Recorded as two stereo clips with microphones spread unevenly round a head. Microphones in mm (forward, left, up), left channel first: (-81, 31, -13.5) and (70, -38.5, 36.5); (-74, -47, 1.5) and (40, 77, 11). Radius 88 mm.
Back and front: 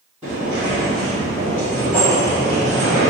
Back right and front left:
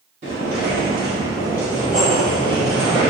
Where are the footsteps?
30° left, 1.6 m; by 3.1 s 135° right, 1.3 m.